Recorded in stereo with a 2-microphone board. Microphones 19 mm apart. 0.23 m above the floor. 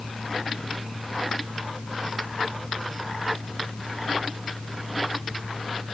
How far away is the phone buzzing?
No phone buzzing in this recording.